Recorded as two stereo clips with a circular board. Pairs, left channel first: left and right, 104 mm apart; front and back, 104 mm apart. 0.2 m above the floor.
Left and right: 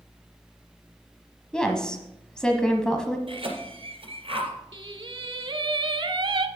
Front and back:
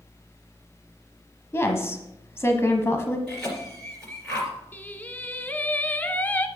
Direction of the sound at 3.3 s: 80° right.